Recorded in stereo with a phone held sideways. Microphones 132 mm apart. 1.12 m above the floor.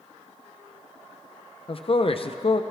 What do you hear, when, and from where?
1.7 s a man speaking: 45° left (ahead or behind), 0.6 m